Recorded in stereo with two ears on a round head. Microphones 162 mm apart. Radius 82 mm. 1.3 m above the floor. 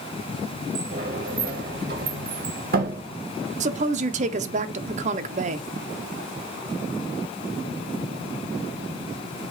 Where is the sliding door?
55° right (ahead or behind), 1.1 m.